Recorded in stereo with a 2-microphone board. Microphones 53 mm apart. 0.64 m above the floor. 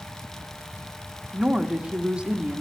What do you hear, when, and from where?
1.3 s a woman speaking: 20° right (ahead or behind), 1.0 m